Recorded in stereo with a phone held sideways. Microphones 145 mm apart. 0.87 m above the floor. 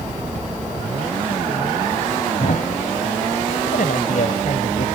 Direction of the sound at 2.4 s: 70° left (ahead or behind).